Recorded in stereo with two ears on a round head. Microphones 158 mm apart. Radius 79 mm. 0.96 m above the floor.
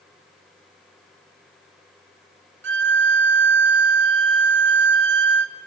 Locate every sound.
2.6 s a violin: 70° right (ahead or behind), 1.5 m